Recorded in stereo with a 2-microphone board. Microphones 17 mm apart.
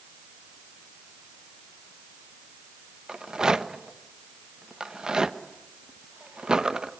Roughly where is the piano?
I don't hear a piano.